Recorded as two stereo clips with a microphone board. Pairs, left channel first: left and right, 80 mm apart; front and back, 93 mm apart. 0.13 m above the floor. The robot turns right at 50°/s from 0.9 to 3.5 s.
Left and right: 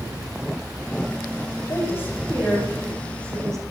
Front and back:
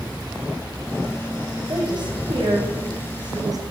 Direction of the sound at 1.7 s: 135° left.